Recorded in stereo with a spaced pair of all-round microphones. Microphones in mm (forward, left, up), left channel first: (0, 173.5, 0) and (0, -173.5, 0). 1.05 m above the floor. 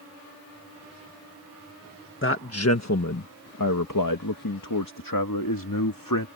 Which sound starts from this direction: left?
A man speaking, at 2.2 s.